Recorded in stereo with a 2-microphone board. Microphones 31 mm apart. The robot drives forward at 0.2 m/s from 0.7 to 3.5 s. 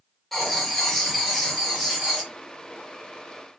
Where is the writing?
5° left (ahead or behind), 0.7 m; by 2.3 s centre (ahead or behind), 1.0 m.